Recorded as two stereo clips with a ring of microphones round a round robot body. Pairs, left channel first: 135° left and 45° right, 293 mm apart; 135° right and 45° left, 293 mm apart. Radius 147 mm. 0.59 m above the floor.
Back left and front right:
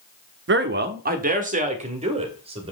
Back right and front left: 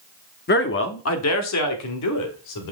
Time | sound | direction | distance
0.5 | a man speaking | 85° right | 0.9 m